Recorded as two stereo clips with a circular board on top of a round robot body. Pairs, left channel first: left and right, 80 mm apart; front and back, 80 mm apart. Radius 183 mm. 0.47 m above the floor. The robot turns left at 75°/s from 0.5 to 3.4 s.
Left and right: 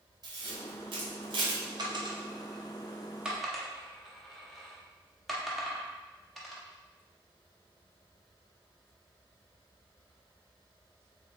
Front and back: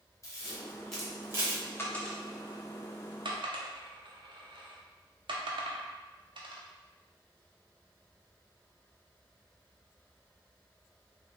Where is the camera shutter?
55° right, 0.7 m; by 1.6 s 135° right, 0.7 m.